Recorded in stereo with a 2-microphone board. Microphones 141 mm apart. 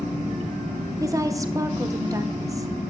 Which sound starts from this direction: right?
A woman speaking, at 1.0 s.